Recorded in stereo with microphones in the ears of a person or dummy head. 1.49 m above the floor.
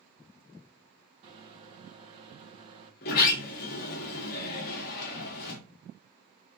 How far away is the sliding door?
About 0.9 m.